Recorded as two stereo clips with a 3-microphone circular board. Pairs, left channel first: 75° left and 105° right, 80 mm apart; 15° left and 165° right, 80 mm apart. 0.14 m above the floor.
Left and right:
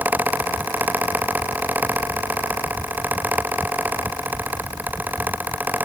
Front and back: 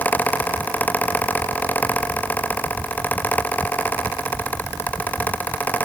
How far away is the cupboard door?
I don't hear a cupboard door.